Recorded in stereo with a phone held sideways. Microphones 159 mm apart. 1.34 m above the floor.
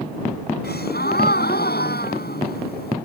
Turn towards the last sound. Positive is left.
turn(degrees=80)